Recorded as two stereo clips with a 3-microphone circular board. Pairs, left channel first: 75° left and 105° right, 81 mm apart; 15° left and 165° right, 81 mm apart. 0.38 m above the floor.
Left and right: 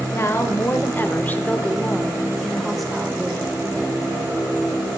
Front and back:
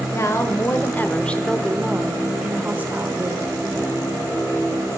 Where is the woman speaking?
40° left, 1.5 m; by 3.6 s straight behind, 1.5 m.